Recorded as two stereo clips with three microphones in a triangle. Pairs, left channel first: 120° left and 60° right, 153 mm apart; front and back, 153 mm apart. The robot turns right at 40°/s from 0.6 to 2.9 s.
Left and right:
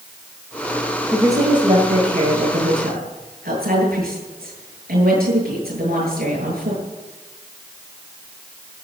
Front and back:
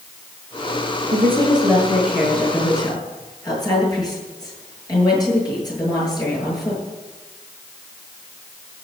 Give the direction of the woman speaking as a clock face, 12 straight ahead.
5 o'clock.